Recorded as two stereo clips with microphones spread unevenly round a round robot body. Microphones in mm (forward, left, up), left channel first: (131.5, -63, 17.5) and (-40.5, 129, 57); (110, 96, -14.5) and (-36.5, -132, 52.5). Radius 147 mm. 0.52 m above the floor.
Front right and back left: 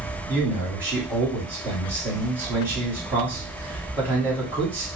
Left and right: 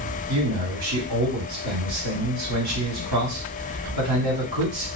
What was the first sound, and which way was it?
A man speaking, 140° right.